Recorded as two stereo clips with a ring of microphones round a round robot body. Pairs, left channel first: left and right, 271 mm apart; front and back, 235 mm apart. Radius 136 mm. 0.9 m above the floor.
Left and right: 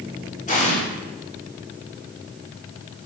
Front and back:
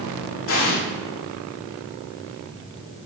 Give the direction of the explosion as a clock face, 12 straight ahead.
11 o'clock.